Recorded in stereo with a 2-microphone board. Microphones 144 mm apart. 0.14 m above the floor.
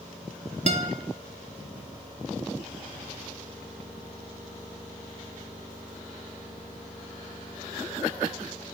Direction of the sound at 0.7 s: 45° right (ahead or behind).